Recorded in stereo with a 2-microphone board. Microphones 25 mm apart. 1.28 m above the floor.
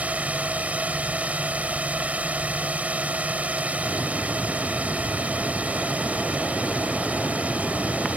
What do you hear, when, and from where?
0.0 s a drone: 70° right (ahead or behind)